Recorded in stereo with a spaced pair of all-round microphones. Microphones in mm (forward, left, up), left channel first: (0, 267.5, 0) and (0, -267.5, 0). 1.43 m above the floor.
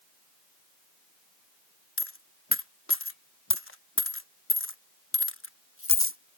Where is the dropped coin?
25° left (ahead or behind).